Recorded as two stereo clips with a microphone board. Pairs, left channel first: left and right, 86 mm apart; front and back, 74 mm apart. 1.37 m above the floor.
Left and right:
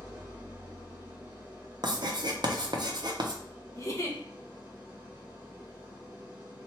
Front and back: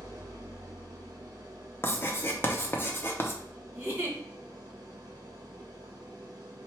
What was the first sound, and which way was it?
An engine running, 155° right.